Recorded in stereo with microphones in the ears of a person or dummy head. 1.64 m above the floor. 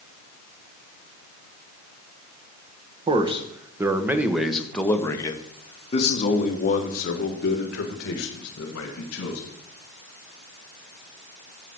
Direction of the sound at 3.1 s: 30° right (ahead or behind).